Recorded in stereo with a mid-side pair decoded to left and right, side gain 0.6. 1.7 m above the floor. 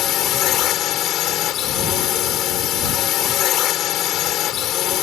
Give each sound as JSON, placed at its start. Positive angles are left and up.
{"t": 0.0, "sound": "a drone", "azimuth_deg": 55}